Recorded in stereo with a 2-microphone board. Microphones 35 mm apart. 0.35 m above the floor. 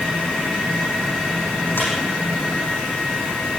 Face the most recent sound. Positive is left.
turn(degrees=80)